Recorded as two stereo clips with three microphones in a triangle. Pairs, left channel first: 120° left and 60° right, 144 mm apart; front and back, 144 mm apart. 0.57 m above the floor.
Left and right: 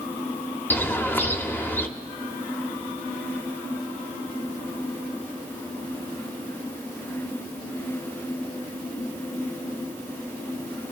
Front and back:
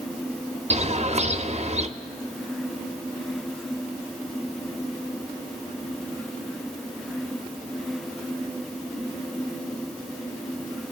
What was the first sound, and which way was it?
A bird, 170° right.